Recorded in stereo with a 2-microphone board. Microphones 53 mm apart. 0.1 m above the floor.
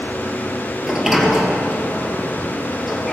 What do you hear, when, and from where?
0.8 s a sliding door: 5° right (ahead or behind), 1.8 m